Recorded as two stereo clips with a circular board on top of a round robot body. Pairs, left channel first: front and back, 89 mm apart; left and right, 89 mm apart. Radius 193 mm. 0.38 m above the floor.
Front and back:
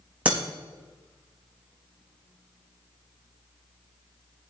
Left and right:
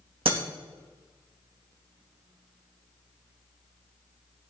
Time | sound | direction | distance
0.2 | breaking glass | 105° right | 2.5 m